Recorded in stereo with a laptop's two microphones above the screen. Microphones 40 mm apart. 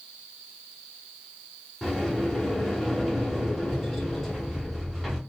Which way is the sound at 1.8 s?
Centre (ahead or behind).